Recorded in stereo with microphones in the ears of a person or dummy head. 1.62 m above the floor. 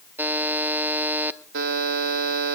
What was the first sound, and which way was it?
A buzzer, 5° right (ahead or behind).